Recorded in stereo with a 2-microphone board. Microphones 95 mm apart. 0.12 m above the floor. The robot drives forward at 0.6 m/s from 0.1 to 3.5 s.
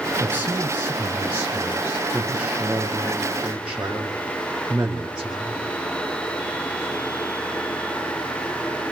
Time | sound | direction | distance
0.2 | a man speaking | 20° right (ahead or behind) | 1.1 m